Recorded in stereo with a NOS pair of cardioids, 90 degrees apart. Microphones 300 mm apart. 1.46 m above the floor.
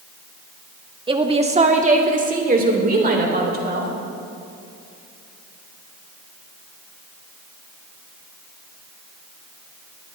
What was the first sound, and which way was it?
A woman speaking, 15° right.